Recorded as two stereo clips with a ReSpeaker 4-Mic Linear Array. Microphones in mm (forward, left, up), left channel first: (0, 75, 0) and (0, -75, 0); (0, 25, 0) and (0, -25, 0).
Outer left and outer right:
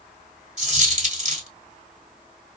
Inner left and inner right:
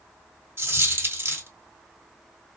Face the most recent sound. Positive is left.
turn(degrees=-55)  # may be behind; listen again after turning